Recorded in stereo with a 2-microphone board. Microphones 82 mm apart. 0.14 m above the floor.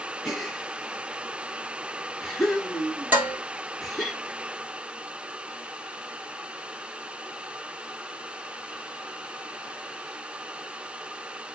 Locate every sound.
0.2 s a gasp: 5° left (ahead or behind), 2.5 m
3.1 s dishes clattering: 20° right (ahead or behind), 2.5 m